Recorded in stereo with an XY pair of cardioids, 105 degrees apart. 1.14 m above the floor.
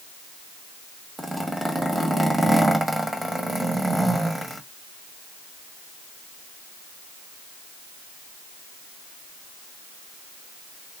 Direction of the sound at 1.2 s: 15° right.